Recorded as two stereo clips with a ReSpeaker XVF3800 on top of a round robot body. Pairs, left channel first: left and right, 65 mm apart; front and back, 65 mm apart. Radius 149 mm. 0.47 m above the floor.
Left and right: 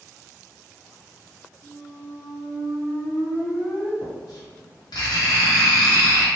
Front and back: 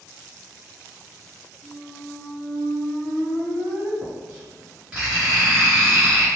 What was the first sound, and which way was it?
A squeak, 115° left.